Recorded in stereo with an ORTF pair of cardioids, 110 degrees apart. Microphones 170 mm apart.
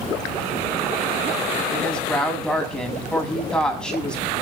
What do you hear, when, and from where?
1.7 s a woman speaking: 5° left, 7.5 m